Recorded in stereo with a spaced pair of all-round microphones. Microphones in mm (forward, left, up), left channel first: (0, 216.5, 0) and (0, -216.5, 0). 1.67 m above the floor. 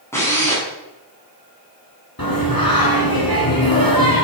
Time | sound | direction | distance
0.1 | a drill | 5° left (ahead or behind) | 7.5 m
2.2 | singing | 55° left (ahead or behind) | 5 m